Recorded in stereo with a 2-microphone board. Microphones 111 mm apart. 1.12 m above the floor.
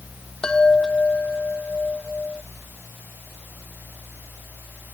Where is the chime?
5° left (ahead or behind).